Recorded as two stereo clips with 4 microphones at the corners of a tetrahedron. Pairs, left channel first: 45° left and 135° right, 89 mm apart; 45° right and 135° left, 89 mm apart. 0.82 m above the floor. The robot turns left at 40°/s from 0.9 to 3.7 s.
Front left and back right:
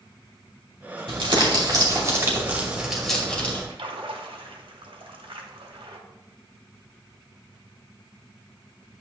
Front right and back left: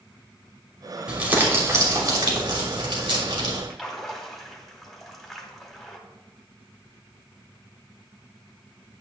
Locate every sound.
1.1 s crumpling: 145° right, 2.5 m; by 3.6 s 110° left, 2.5 m
3.7 s a splash: 135° right, 1.4 m